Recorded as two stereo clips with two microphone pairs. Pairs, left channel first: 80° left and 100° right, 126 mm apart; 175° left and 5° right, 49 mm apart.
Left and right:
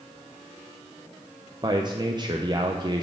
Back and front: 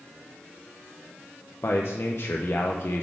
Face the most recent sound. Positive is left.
turn(degrees=-155)